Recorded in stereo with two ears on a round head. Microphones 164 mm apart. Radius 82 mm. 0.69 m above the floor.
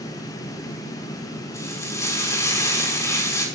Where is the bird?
No bird in this recording.